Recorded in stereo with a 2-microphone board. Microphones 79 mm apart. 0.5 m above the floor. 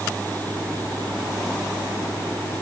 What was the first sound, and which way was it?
Only background noise.